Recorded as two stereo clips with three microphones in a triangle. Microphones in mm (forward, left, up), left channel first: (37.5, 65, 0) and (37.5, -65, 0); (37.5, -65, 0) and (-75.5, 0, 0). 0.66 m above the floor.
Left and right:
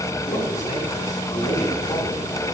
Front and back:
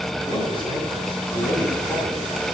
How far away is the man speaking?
About 7 m.